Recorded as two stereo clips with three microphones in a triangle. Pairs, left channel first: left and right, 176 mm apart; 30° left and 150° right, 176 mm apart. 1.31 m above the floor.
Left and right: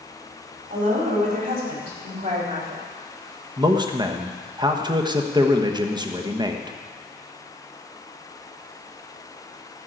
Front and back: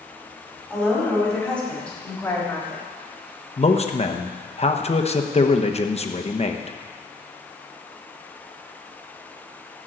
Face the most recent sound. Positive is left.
turn(degrees=-25)